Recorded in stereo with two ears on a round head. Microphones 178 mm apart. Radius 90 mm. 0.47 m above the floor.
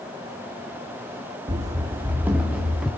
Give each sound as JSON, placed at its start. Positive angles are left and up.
{"t": 1.5, "sound": "running footsteps", "side_deg": -25, "distance_m": 1.6}